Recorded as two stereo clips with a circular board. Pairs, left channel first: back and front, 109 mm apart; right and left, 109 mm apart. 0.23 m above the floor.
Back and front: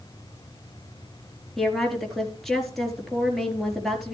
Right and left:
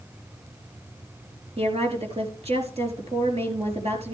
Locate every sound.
1.6 s a woman speaking: 90° left, 4 m